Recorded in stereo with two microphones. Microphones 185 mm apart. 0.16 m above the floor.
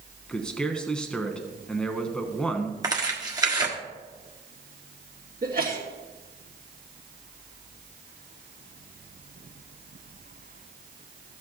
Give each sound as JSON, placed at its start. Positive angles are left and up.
{"t": 0.3, "sound": "a man speaking", "side_deg": 5, "distance_m": 1.1}
{"t": 2.8, "sound": "tearing paper", "side_deg": -20, "distance_m": 1.5}
{"t": 5.4, "sound": "a sneeze", "side_deg": -55, "distance_m": 2.5}